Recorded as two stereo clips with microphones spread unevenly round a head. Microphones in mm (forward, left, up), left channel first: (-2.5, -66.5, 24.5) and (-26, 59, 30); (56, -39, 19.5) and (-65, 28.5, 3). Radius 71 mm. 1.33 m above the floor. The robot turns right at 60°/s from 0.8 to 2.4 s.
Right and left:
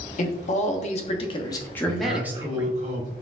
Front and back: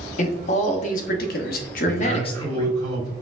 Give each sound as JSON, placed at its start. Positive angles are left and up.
{"t": 0.2, "sound": "a man speaking", "azimuth_deg": -65, "distance_m": 0.7}
{"t": 1.9, "sound": "a man speaking", "azimuth_deg": 110, "distance_m": 1.8}